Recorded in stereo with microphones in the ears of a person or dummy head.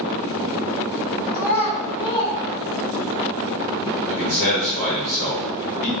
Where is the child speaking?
45° left (ahead or behind), 1.7 m; by 3.2 s 15° right (ahead or behind), 1.0 m.